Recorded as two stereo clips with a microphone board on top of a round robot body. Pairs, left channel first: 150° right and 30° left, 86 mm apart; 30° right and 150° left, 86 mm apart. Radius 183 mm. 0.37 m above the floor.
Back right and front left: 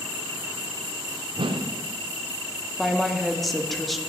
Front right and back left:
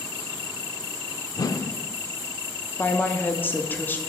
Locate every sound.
1.4 s a whoosh: 15° left, 0.6 m
2.8 s a woman speaking: 65° right, 1.1 m